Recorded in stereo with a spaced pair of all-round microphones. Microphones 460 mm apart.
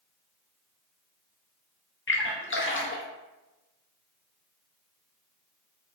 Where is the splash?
30° left (ahead or behind), 0.6 m.